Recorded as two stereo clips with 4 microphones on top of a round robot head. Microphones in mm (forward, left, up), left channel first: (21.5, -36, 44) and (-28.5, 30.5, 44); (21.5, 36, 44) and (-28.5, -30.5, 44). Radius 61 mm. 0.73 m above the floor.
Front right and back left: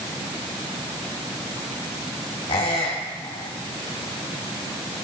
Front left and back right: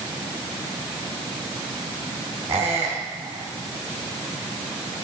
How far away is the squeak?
About 2.5 m.